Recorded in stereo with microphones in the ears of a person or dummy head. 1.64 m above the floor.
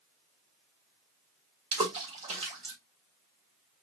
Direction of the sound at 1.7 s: 40° right (ahead or behind).